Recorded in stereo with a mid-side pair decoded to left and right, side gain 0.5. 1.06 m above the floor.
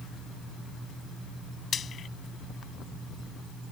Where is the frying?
45° left.